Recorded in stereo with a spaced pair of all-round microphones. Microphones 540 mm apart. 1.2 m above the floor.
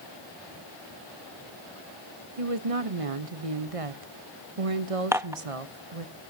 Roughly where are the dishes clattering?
Centre.